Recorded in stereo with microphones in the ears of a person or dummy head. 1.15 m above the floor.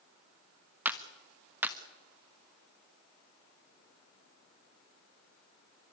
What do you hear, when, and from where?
0.8 s a clap: 5° right (ahead or behind), 1.1 m